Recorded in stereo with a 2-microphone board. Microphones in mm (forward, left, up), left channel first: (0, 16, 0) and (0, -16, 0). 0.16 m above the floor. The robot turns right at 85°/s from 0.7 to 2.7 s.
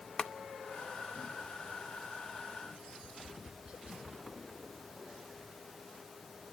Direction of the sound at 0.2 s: 25° left (ahead or behind).